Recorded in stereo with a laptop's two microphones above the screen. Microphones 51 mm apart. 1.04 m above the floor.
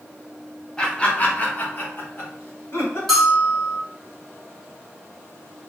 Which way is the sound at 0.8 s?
15° left (ahead or behind).